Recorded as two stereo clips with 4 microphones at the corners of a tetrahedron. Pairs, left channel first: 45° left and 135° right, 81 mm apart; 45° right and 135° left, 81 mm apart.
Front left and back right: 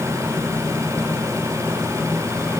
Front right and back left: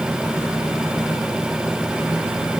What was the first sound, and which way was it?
Only background noise.